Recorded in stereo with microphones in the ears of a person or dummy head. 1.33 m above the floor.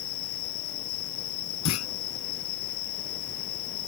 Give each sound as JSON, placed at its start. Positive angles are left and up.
{"t": 0.0, "sound": "an insect", "side_deg": 60}
{"t": 1.6, "sound": "a clunk", "side_deg": 85}